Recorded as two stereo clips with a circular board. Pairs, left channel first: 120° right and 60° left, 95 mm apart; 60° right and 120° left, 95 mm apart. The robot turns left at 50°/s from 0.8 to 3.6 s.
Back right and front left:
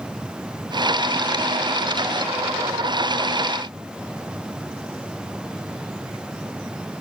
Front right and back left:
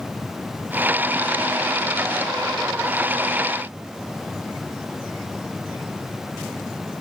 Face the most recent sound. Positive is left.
No sound to turn to.